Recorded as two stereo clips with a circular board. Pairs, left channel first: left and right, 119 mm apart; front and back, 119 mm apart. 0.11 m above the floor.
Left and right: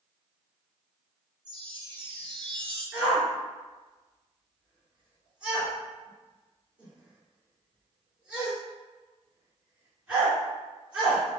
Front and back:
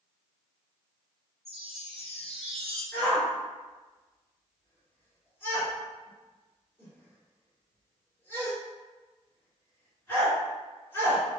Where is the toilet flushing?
No toilet flushing in this recording.